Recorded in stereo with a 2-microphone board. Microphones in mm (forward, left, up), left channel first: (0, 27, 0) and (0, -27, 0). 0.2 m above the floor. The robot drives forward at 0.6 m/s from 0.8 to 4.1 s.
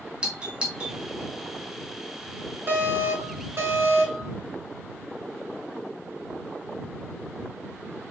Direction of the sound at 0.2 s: 20° right (ahead or behind).